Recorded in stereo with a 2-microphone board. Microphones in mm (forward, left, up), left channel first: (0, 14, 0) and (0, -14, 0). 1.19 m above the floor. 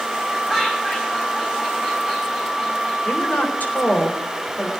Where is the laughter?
15° left (ahead or behind), 7 m.